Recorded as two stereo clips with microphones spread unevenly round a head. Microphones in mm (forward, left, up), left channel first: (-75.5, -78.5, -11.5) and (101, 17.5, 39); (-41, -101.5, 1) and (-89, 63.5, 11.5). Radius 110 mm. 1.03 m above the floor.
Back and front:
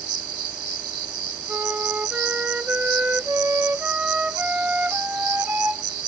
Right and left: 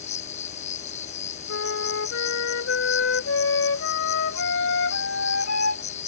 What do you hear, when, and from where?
0.0 s an insect: 10° right
1.5 s a flute: 50° right